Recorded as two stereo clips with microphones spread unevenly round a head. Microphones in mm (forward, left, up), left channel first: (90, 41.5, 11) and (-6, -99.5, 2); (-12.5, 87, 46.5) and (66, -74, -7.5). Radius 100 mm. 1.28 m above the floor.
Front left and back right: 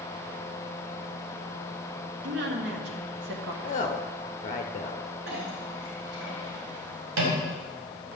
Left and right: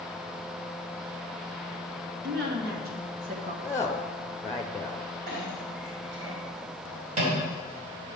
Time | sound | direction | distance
2.2 | a woman speaking | 105° right | 2 m
3.6 | a woman speaking | 30° left | 0.6 m
5.3 | a clink | 125° right | 3.5 m